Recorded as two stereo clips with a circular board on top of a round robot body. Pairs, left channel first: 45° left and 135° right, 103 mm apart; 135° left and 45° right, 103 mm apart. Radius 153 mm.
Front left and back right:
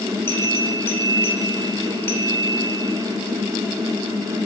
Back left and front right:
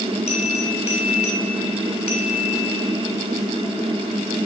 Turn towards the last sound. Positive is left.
turn(degrees=115)